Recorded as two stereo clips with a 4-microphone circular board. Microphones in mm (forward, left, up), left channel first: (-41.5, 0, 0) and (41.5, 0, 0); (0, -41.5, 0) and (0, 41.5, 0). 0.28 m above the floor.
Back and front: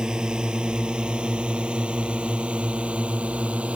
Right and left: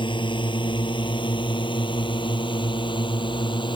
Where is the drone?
80° right; by 3.8 s 75° right.